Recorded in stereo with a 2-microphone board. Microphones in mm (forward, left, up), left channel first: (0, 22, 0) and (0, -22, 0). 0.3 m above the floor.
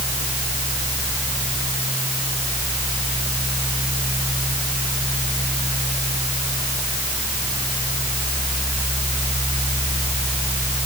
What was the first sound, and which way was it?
Only background noise.